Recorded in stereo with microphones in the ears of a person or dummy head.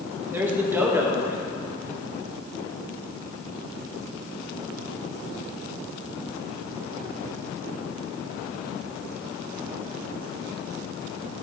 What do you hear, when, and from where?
0.3 s a man speaking: 15° right (ahead or behind), 1.6 m